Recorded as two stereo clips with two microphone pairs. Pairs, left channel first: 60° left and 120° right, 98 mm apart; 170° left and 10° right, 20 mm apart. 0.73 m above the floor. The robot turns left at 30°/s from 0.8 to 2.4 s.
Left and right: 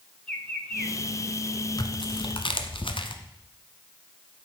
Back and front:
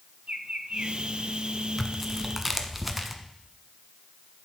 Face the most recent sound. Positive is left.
turn(degrees=70)